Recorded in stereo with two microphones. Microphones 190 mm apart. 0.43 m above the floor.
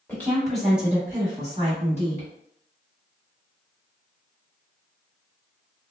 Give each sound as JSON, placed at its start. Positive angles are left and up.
{"t": 0.1, "sound": "a woman speaking", "side_deg": 10, "distance_m": 1.2}